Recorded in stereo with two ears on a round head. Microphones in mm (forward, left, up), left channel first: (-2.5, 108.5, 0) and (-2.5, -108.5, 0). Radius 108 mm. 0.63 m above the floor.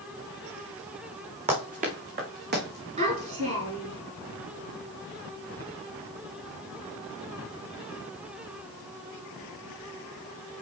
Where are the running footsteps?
30° right (ahead or behind), 3 m; by 2.9 s 50° right (ahead or behind), 3 m.